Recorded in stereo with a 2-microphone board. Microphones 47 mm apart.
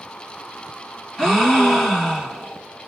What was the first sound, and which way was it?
A gasp, 10° left (ahead or behind).